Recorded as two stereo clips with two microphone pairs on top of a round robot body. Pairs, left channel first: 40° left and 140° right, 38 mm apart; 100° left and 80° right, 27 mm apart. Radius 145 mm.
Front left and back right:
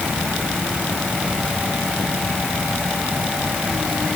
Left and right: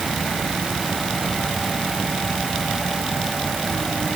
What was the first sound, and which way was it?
Only background noise.